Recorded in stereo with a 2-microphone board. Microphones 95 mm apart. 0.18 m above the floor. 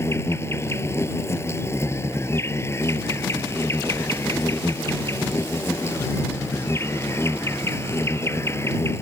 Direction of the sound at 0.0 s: 30° left (ahead or behind).